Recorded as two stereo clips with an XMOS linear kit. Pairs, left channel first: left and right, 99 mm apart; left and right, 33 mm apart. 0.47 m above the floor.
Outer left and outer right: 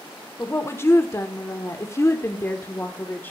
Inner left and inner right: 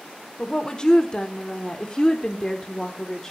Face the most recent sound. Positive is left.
turn(degrees=20)  # may be behind; listen again after turning